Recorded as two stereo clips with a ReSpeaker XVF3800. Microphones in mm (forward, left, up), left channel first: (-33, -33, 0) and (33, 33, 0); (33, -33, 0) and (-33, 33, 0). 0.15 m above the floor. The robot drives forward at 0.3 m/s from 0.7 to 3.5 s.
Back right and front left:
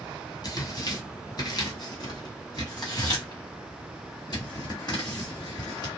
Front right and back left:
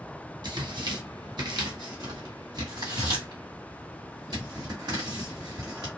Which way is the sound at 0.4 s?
Straight behind.